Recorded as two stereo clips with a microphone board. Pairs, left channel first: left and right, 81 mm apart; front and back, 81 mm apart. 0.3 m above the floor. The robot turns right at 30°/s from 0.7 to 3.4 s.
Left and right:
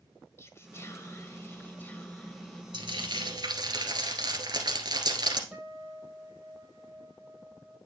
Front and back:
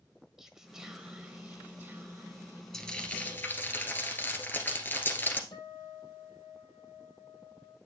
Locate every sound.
0.4 s whispering: 100° left, 1.4 m; by 2.6 s 160° left, 1.4 m
2.7 s frying: 85° right, 1.8 m; by 5.4 s 65° right, 1.8 m
5.5 s a guitar: 5° right, 3.5 m